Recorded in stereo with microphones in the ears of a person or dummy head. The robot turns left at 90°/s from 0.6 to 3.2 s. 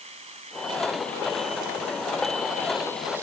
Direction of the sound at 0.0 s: 140° right.